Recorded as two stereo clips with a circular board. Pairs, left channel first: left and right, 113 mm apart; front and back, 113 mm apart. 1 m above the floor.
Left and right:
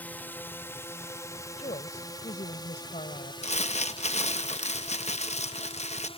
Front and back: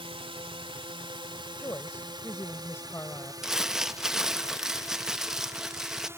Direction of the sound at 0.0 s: 160° left.